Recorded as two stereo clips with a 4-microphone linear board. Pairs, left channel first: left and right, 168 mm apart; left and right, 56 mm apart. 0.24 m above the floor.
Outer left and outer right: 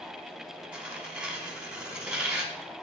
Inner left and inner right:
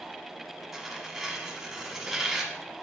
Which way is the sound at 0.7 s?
5° right (ahead or behind).